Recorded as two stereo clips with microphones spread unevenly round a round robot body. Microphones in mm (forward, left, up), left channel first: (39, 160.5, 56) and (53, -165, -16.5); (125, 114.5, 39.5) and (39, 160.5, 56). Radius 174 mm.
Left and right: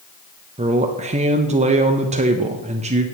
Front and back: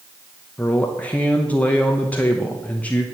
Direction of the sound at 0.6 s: 70° right.